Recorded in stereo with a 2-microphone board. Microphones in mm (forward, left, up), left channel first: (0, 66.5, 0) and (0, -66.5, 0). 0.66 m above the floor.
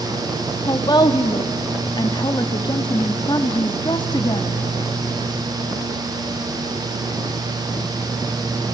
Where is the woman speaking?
35° left (ahead or behind), 1.3 m.